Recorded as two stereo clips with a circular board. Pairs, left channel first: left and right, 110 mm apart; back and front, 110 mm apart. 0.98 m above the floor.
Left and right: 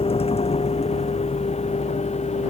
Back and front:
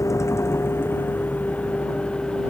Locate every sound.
0.0 s a vehicle: 115° left; by 2.5 s 95° left